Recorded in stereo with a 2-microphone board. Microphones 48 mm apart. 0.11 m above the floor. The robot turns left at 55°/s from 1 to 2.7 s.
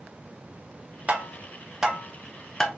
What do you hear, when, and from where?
1.1 s tapping: 30° right (ahead or behind), 0.8 m; by 2.7 s 10° left (ahead or behind), 0.8 m